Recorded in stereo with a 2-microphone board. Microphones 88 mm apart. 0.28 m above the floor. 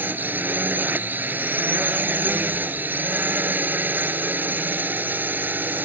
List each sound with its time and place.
0.0 s a drone: 20° right (ahead or behind)